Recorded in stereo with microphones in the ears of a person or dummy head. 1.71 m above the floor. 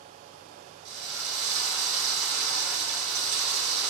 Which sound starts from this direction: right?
A drill, at 0.8 s.